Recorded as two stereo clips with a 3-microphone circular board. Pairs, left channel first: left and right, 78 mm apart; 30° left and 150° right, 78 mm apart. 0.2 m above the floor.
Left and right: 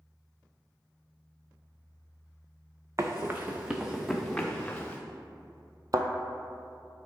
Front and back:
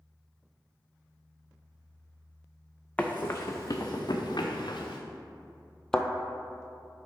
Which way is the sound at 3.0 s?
45° right.